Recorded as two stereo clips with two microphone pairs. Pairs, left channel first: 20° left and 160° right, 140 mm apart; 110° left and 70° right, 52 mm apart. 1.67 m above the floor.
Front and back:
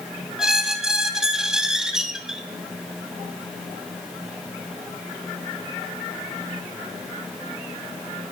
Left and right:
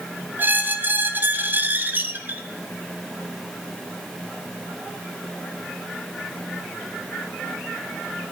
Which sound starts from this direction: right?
A squeak, at 0.4 s.